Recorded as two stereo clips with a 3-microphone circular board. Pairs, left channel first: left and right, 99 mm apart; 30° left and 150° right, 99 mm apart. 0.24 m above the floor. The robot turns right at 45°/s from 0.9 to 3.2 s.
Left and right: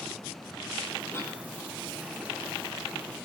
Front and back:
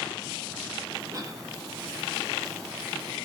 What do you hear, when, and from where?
1.1 s a cough: 150° left, 5.5 m; by 1.4 s 165° left, 5.5 m